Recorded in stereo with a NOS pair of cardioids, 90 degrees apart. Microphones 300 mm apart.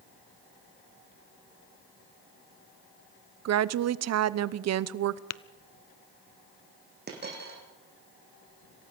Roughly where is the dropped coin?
Ahead right.